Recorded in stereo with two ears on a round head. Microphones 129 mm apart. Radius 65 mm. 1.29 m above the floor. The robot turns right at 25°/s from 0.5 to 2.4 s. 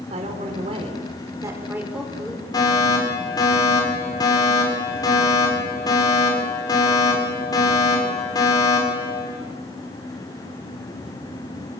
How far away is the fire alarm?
About 7.5 m.